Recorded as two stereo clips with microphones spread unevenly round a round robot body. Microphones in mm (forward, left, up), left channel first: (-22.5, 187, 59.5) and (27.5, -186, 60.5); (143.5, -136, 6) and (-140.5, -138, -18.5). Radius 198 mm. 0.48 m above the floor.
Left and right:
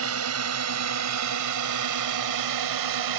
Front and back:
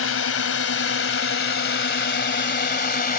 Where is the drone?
30° right; by 3.2 s 55° right.